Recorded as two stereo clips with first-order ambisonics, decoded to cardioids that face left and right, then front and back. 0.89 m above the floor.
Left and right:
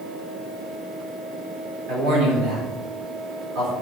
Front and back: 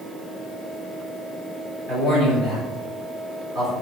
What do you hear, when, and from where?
1.9 s a man speaking: 100° right, 4.5 m